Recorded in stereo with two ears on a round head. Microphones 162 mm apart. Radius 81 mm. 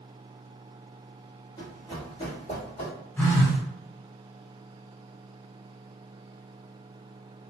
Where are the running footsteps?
20° left (ahead or behind), 1.4 m; by 2.9 s 45° left (ahead or behind), 2 m.